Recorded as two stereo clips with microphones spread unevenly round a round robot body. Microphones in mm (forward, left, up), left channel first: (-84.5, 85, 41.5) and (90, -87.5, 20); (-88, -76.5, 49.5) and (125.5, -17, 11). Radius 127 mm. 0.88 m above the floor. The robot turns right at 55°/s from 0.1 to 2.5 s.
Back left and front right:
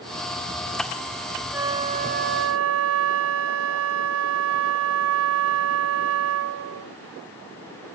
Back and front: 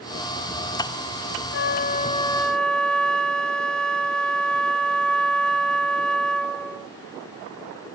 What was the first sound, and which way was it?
A flute, 130° right.